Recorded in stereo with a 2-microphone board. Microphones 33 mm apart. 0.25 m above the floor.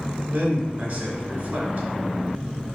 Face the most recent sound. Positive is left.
turn(degrees=-60)  # may be behind; listen again after turning